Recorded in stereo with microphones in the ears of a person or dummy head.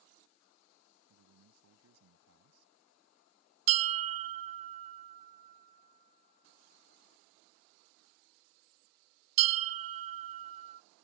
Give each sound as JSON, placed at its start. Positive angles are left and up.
{"t": 1.1, "sound": "a man speaking", "side_deg": -85}
{"t": 3.7, "sound": "a bell", "side_deg": -35}